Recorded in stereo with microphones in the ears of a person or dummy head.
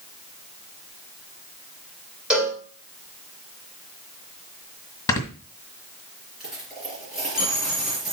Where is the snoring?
20° left (ahead or behind), 1.6 m.